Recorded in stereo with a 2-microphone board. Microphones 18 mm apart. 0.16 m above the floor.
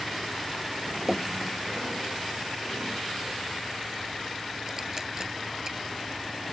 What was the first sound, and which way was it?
Dripping, 25° right (ahead or behind).